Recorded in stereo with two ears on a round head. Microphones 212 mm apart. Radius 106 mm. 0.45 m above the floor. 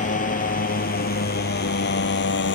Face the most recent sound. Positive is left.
turn(degrees=50)  # may be behind; listen again after turning